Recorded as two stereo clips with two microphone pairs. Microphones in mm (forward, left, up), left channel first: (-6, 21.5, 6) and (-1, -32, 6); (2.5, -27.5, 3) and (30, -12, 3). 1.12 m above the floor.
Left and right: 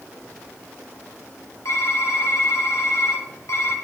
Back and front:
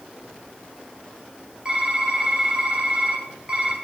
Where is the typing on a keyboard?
90° left, 1.3 m.